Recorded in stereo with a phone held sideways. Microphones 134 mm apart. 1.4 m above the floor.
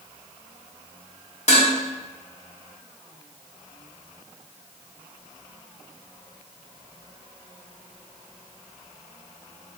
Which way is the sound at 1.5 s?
55° left (ahead or behind).